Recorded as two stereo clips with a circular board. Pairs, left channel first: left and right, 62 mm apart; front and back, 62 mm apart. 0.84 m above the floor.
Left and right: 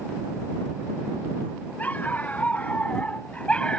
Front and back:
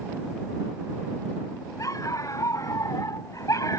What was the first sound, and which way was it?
A dog barking, 25° left.